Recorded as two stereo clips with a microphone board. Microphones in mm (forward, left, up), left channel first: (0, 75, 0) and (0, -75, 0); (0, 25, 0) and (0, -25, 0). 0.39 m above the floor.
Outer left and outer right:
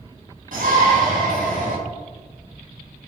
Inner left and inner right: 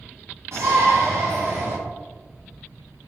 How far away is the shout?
About 3 m.